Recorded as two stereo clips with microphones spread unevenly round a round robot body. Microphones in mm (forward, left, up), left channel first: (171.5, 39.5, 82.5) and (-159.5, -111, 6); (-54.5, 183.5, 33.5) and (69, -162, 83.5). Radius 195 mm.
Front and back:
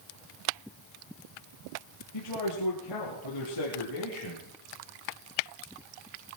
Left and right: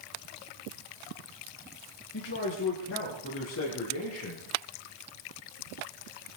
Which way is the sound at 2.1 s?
55° left.